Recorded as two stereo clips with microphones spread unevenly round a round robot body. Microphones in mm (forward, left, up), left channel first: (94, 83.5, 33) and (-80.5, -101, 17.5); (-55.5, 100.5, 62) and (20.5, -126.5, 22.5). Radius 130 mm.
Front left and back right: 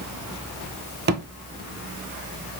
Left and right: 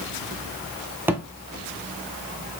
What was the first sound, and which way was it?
A thud, 160° right.